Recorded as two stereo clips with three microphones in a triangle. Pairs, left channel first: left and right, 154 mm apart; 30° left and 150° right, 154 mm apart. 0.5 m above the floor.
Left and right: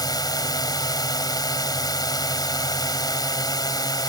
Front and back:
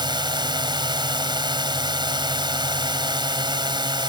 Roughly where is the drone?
Behind left.